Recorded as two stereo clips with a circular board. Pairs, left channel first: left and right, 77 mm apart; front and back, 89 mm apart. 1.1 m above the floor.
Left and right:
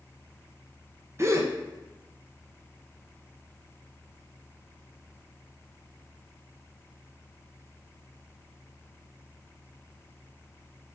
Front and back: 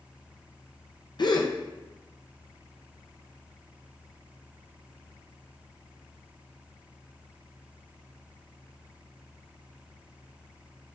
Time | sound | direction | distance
1.2 | a gasp | 35° right | 0.5 m